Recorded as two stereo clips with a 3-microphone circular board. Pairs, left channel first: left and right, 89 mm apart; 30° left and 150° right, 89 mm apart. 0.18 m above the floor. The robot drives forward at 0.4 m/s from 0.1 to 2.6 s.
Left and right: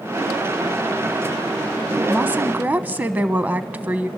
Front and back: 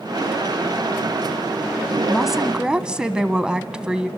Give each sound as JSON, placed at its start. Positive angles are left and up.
{"t": 2.1, "sound": "a woman speaking", "azimuth_deg": -55, "distance_m": 1.0}